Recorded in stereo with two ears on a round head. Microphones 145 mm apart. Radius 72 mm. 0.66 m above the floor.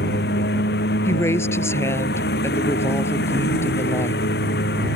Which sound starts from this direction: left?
A lawn mower, at 0.0 s.